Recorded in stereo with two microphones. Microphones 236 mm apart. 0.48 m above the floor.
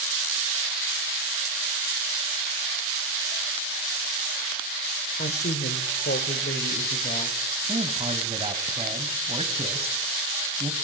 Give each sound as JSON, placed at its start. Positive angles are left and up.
{"t": 5.2, "sound": "a woman speaking", "side_deg": 40, "distance_m": 1.6}
{"t": 7.7, "sound": "a man speaking", "side_deg": -25, "distance_m": 2.5}